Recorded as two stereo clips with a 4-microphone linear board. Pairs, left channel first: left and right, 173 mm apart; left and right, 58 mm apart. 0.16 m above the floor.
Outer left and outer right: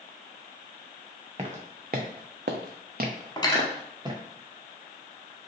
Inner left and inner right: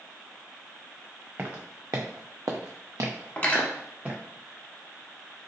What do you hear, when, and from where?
1.4 s footsteps: 40° right (ahead or behind), 0.8 m; by 4.2 s 25° right (ahead or behind), 1.1 m
3.4 s cutlery clinking: 25° left (ahead or behind), 0.6 m